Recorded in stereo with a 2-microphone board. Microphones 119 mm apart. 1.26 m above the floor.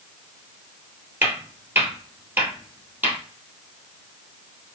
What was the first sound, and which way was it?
Footsteps, 20° right (ahead or behind).